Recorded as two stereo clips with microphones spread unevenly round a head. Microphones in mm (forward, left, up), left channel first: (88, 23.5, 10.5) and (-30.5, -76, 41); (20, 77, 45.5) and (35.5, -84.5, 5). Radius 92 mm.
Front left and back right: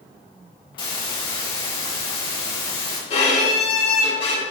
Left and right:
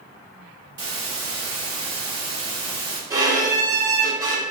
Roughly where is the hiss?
Ahead.